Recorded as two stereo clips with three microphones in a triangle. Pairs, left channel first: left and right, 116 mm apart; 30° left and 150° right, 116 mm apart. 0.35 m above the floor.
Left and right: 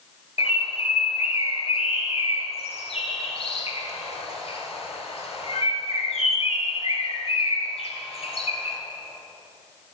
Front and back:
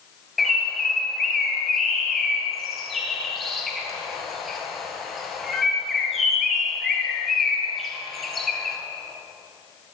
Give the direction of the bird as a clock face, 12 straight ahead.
8 o'clock.